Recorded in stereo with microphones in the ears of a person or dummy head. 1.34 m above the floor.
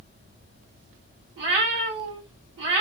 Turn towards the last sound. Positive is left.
turn(degrees=-65)  # may be behind; listen again after turning